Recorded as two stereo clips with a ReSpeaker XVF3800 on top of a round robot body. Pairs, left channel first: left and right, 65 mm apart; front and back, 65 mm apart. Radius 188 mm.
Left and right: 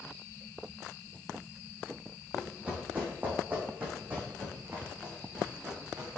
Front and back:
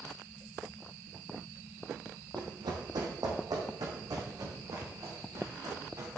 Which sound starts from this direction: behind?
Running footsteps, at 2.4 s.